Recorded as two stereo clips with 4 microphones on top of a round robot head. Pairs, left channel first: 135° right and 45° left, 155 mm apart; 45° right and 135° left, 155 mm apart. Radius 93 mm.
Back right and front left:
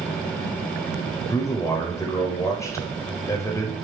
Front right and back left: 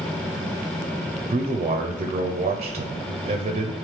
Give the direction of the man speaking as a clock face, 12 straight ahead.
7 o'clock.